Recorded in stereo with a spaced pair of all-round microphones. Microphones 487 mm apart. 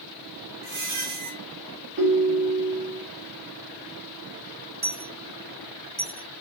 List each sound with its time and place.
0.6 s a squeak: 45° right (ahead or behind), 1.0 m
2.0 s a ringtone: 25° right (ahead or behind), 1.5 m
4.8 s a dropped coin: 20° right (ahead or behind), 0.8 m